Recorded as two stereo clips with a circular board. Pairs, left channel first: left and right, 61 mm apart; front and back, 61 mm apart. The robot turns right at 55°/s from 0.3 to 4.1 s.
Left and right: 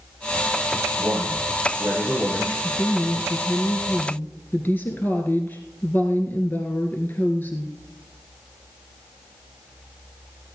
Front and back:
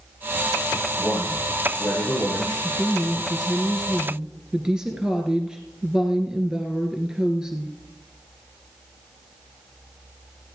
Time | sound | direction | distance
1.0 | a man speaking | 45° right | 6.5 m
2.6 | a woman speaking | 30° left | 1.6 m